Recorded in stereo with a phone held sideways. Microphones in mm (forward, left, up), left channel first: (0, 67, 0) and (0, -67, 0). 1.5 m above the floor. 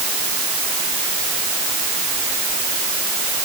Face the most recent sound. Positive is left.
No sound to turn to.